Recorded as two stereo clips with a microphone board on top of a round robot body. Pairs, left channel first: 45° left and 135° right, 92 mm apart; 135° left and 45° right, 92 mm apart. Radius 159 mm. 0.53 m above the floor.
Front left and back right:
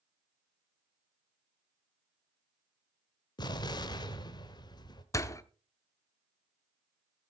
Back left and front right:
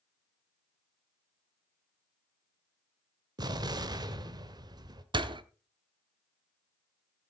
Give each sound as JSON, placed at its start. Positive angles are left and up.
{"t": 3.4, "sound": "an explosion", "azimuth_deg": 0, "distance_m": 1.0}
{"t": 5.1, "sound": "a door slam", "azimuth_deg": -10, "distance_m": 0.9}